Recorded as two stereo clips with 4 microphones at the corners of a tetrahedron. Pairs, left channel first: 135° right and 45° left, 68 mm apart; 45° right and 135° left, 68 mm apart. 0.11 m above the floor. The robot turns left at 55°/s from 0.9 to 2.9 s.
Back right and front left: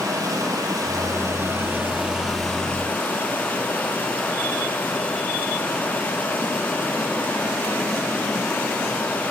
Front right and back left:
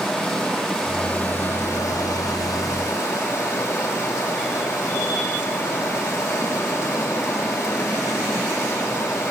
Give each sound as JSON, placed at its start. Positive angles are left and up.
{"t": 0.0, "sound": "running water", "azimuth_deg": 40, "distance_m": 2.5}